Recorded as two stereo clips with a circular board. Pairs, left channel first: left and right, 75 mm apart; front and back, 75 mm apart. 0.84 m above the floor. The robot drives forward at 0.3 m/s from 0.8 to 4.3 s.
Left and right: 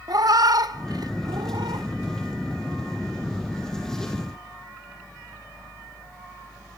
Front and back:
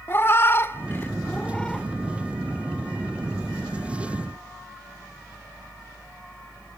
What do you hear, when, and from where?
0.1 s a cat meowing: 60° right, 0.7 m; by 1.9 s 85° right, 0.6 m